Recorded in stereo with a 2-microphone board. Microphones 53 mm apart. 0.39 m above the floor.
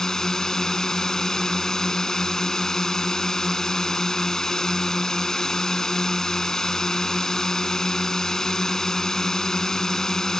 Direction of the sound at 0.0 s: 10° left (ahead or behind).